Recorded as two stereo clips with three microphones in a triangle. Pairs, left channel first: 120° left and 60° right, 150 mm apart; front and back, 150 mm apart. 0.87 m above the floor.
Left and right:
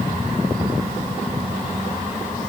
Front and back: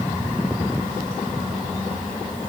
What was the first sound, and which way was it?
Only background noise.